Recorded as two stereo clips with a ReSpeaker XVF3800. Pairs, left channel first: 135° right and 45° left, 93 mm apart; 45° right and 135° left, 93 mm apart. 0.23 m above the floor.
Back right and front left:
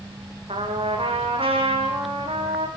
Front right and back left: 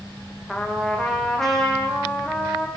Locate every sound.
0.5 s a trumpet: 40° left, 6 m